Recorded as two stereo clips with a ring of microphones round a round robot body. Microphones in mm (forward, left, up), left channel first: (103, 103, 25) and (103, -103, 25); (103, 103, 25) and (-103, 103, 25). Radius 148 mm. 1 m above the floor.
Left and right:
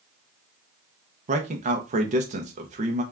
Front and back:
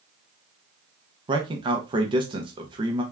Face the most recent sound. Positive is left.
turn(degrees=-125)